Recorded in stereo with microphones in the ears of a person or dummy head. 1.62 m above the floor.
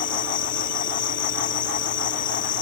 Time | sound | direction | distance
0.0 | an insect | 40° left (ahead or behind) | ?